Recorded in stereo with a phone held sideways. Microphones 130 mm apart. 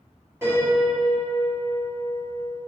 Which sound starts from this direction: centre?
A piano, at 0.4 s.